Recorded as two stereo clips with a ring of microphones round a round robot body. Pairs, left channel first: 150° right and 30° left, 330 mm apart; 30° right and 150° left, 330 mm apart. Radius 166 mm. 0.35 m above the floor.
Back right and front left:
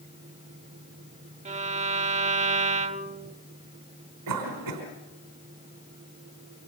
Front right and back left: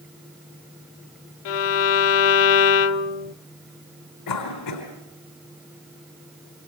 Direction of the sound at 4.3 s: 5° right.